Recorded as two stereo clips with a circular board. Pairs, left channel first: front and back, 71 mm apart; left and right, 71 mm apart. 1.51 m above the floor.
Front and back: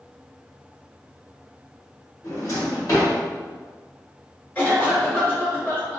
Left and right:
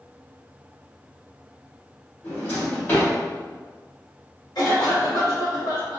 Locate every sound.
2.2 s a drawer: 35° left, 1.7 m
4.5 s a cough: 70° left, 1.8 m